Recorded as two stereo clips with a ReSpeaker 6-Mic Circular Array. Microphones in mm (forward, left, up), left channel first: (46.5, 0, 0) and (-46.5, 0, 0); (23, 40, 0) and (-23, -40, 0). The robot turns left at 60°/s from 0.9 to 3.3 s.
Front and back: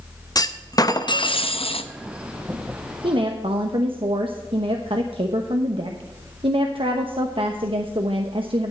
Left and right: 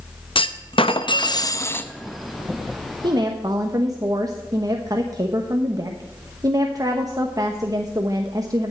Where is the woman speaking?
150° right, 1.0 m; by 8.7 s 165° right, 1.0 m.